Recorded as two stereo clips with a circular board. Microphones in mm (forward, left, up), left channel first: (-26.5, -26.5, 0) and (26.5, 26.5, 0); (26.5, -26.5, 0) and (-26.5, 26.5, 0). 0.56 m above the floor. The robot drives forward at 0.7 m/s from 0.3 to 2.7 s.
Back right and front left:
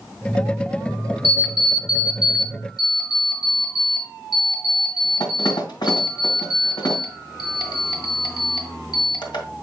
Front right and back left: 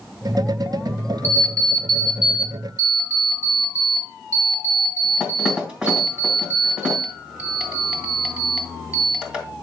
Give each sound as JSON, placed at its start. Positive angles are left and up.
{"t": 1.2, "sound": "an alarm clock", "azimuth_deg": -115, "distance_m": 0.8}